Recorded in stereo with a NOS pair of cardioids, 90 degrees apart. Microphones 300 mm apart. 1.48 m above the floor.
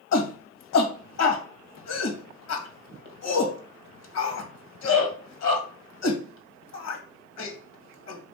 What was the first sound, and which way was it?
A shout, 60° left.